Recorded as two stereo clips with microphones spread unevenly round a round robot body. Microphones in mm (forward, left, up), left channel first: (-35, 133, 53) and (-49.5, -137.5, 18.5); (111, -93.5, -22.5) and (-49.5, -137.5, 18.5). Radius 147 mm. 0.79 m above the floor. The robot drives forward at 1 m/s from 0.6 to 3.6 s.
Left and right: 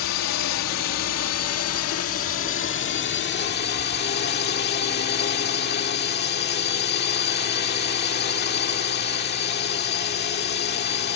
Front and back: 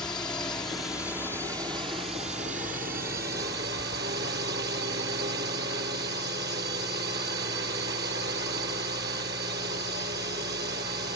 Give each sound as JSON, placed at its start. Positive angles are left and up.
{"t": 0.0, "sound": "a drone", "azimuth_deg": 90}